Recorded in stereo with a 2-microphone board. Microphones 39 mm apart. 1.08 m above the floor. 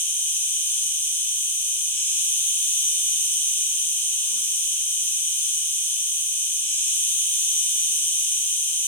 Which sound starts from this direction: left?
An insect, at 0.0 s.